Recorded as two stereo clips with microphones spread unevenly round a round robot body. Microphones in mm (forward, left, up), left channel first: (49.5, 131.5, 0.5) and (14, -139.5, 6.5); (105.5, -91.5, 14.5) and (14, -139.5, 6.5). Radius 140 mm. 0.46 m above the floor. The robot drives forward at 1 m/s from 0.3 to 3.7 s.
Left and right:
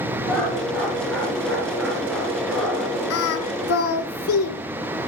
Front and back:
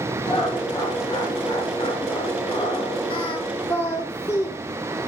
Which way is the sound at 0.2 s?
5° right.